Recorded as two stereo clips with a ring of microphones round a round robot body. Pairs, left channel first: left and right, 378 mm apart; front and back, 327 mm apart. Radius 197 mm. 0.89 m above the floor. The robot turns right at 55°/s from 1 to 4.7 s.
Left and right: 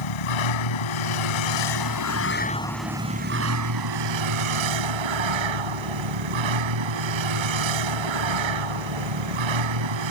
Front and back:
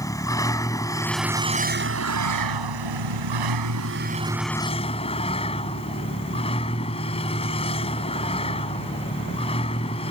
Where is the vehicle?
80° left; by 10.1 s 75° right.